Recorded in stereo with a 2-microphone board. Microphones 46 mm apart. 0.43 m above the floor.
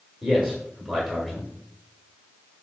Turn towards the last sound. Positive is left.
turn(degrees=0)  # may be behind; listen again after turning